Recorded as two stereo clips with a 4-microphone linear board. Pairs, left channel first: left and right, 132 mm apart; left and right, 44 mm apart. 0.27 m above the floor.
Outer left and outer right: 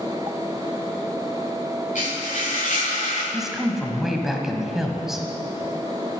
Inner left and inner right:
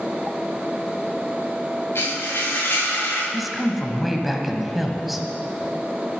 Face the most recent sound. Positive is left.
turn(degrees=-5)  # may be behind; listen again after turning